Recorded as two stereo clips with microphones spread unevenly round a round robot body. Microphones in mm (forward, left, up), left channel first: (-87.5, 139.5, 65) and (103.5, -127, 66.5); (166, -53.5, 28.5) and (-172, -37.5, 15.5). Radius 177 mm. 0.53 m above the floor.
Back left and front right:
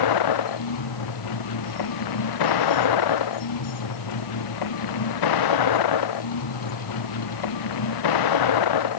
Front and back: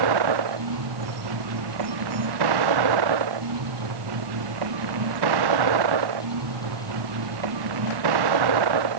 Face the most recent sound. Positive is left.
turn(degrees=150)